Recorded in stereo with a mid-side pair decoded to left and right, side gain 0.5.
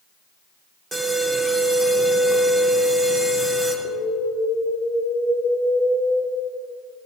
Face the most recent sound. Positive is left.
turn(degrees=-40)